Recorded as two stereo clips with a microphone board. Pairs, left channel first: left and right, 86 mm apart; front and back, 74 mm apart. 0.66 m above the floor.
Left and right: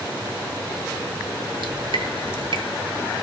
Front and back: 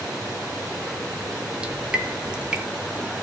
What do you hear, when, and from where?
1.6 s dripping: 105° right, 1.8 m